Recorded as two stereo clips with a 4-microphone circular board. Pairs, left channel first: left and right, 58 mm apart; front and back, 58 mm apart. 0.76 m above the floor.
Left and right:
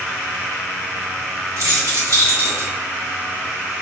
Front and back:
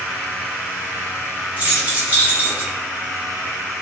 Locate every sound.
1.6 s keys jangling: 115° right, 1.4 m; by 2.7 s 125° right, 0.7 m